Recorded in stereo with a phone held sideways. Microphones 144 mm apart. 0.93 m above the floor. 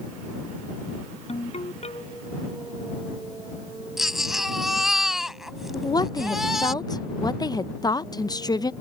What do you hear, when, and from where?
1.3 s a ringtone: 45° left (ahead or behind)
4.0 s a baby crying: centre (ahead or behind)
5.7 s a woman speaking: 25° left (ahead or behind)